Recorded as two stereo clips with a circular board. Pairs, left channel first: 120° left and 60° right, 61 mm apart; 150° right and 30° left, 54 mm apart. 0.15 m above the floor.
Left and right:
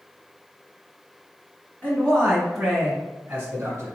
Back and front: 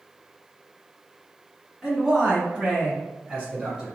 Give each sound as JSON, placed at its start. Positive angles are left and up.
{"t": 1.8, "sound": "a man speaking", "azimuth_deg": 95, "distance_m": 1.3}